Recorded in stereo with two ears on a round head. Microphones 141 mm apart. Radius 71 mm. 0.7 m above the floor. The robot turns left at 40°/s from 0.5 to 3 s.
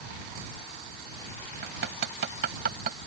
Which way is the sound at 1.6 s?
65° right (ahead or behind).